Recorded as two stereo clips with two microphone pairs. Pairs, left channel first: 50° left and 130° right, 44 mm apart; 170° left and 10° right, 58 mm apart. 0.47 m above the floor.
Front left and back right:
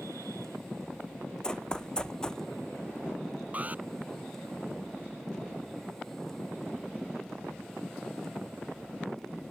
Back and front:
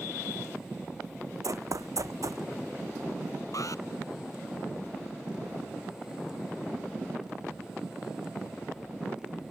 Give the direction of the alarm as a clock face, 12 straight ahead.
6 o'clock.